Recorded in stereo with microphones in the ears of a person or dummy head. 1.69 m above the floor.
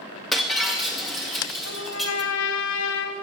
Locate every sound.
0.3 s breaking glass: 5° right (ahead or behind), 1.7 m
1.6 s a trumpet: 80° left, 2 m